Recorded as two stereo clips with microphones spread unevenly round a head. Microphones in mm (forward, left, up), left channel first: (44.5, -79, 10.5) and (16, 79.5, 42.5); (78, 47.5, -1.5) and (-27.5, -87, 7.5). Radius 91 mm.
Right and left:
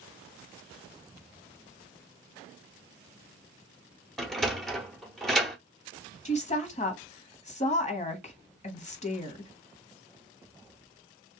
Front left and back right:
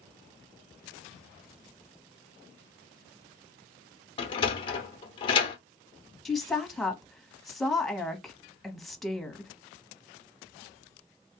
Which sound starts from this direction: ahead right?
A woman speaking, at 6.2 s.